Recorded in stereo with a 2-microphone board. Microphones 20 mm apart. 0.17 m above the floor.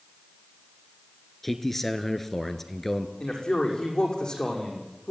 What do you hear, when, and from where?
1.4 s a man speaking: 10° left (ahead or behind), 2 m
3.2 s a man speaking: 40° left (ahead or behind), 7.5 m